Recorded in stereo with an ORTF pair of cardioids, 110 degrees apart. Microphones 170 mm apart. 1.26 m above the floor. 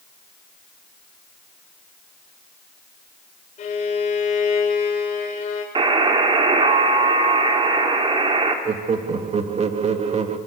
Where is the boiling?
I don't hear boiling.